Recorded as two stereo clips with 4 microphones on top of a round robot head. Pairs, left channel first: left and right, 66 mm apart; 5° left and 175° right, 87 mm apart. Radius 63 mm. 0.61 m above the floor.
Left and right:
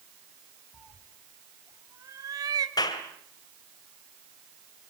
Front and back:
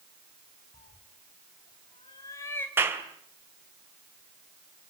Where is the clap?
120° left, 2.5 m.